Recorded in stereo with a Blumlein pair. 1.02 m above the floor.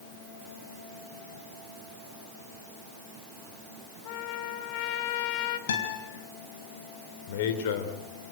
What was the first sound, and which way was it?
A trumpet, 45° left.